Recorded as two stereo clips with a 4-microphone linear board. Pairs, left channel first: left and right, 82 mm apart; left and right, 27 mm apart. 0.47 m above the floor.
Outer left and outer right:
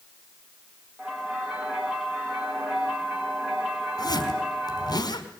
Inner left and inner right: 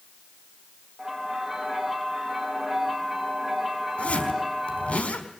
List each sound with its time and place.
1.0 s a bell: 10° right (ahead or behind), 6.5 m
4.0 s a zipper: 50° left (ahead or behind), 4 m